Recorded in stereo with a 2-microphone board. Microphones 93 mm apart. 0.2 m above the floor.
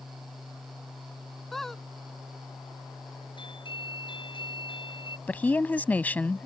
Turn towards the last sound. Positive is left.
turn(degrees=20)  # may be behind; listen again after turning